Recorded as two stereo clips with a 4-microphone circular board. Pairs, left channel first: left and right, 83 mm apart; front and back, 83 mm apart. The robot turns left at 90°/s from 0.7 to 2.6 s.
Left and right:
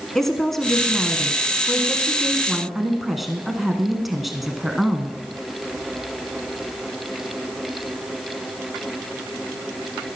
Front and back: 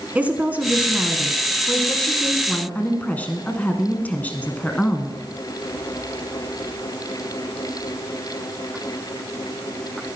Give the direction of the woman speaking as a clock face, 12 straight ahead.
6 o'clock.